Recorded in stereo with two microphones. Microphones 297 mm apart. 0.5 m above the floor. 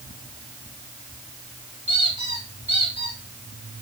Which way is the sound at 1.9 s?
90° right.